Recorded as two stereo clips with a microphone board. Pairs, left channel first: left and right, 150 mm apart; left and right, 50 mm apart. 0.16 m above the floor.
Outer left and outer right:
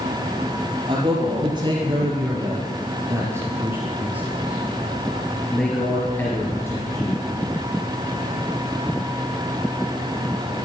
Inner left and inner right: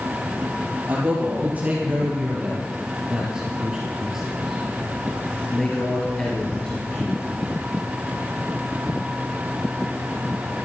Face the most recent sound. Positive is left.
turn(degrees=25)  # may be behind; listen again after turning